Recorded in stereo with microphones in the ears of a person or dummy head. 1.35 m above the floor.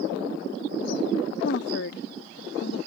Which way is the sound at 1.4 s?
65° left (ahead or behind).